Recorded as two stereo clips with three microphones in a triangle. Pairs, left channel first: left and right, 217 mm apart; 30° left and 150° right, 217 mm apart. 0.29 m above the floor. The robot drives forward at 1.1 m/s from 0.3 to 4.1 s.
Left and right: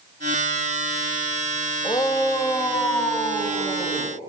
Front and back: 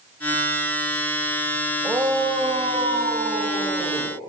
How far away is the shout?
About 1.1 m.